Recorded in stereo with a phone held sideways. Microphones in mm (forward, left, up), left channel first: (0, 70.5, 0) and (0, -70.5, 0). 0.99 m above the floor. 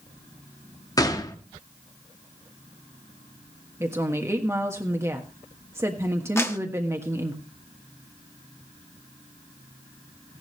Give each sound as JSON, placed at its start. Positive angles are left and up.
{"t": 1.0, "sound": "a gunshot", "side_deg": 25, "distance_m": 1.3}
{"t": 3.8, "sound": "a woman speaking", "side_deg": -20, "distance_m": 1.4}
{"t": 6.4, "sound": "a clap", "side_deg": 20, "distance_m": 1.4}